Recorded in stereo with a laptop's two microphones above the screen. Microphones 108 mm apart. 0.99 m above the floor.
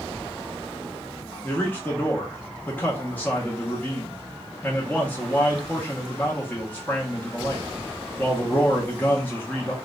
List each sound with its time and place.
1.4 s a man speaking: 15° left (ahead or behind), 0.6 m